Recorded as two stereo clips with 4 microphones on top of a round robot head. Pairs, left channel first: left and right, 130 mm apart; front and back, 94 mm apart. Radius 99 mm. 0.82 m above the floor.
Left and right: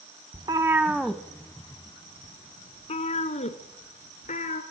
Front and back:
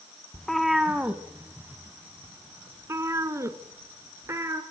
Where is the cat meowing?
80° right, 0.7 m; by 4.6 s 120° left, 2 m.